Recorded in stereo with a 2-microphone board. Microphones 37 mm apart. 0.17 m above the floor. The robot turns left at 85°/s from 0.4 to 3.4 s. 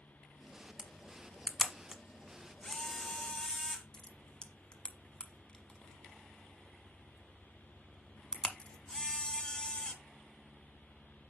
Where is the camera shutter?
20° right (ahead or behind), 1.2 m; by 9.9 s 20° left (ahead or behind), 1.2 m.